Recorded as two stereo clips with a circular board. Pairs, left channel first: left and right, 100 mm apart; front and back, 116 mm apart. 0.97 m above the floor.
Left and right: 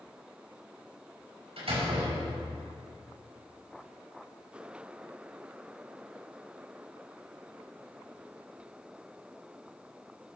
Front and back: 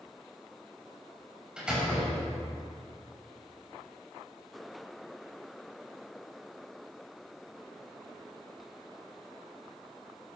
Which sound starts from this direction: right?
A door slam, at 1.6 s.